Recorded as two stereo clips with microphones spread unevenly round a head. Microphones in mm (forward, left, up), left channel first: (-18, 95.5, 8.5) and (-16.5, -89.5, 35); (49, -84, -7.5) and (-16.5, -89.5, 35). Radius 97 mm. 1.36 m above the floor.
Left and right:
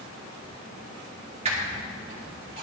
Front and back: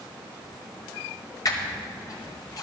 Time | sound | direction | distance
1.4 | a squeak | 30° right | 2.5 m